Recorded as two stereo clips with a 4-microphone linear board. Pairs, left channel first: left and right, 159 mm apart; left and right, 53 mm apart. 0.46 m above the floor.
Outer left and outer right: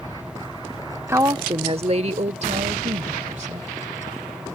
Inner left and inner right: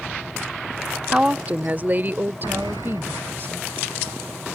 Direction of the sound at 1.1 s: 15° right (ahead or behind).